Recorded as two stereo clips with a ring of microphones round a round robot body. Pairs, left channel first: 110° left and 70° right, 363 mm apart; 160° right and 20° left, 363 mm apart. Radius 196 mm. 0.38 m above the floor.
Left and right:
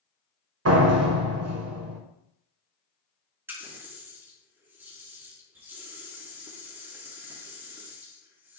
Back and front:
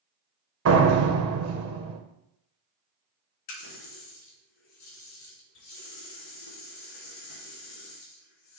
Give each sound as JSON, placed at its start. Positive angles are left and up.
{"t": 0.7, "sound": "a door slam", "azimuth_deg": -25, "distance_m": 1.4}
{"t": 3.5, "sound": "a running tap", "azimuth_deg": -150, "distance_m": 3.5}